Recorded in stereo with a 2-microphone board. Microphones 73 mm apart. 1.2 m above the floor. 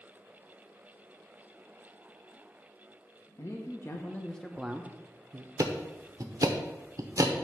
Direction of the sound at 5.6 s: 45° right (ahead or behind).